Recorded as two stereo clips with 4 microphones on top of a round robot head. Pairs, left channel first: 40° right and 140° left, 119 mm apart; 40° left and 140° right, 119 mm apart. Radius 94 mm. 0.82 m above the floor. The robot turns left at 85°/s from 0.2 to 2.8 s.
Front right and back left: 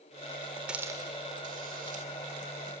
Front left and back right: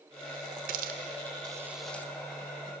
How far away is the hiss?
About 0.8 m.